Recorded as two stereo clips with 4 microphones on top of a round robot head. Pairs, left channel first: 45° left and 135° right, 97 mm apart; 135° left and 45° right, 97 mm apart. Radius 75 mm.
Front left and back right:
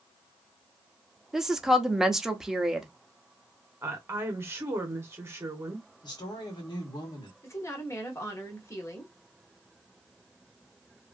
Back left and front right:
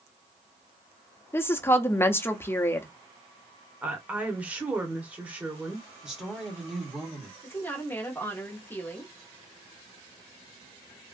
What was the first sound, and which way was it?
A woman speaking, 145° left.